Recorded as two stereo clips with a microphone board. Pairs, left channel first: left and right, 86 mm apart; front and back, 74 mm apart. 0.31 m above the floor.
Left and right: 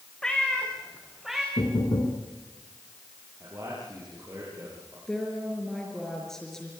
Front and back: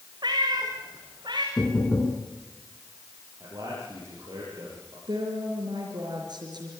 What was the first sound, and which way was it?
A cat meowing, 170° left.